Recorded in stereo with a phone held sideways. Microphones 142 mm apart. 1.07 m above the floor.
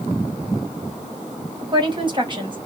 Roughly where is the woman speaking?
Right.